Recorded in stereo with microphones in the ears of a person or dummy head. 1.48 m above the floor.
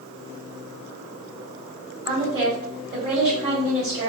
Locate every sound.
2.0 s a woman speaking: 15° right (ahead or behind), 2.0 m